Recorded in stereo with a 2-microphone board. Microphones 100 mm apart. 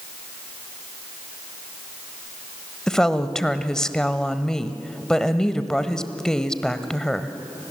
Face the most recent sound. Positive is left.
turn(degrees=5)  # may be behind; listen again after turning